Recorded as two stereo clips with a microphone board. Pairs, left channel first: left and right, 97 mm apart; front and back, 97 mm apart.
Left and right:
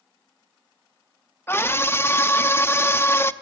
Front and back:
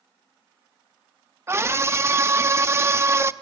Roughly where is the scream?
Behind left.